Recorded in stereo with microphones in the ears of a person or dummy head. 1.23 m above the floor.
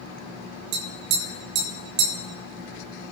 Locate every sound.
0.7 s tapping: 65° right (ahead or behind), 2.5 m